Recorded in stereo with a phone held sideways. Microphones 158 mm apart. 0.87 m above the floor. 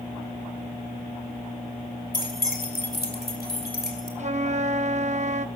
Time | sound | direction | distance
2.1 | keys jangling | 65° left (ahead or behind) | 2.5 m
4.2 | a flute | 45° right (ahead or behind) | 0.6 m